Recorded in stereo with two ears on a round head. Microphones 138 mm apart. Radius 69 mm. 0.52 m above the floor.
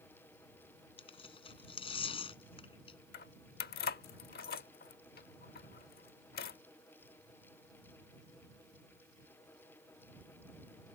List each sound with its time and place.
1.0 s tearing paper: 35° left (ahead or behind)
3.1 s keys jangling: 65° left (ahead or behind)